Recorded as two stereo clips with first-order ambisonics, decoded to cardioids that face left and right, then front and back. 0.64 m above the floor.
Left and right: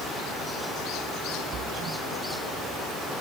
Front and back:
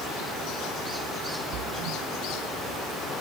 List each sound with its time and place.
1.5 s a splash: 150° right